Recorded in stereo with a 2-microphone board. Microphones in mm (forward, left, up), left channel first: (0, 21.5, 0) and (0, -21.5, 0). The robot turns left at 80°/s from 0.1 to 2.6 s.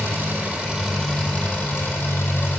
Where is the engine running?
120° right, 3 m; by 2.6 s 40° left, 3 m.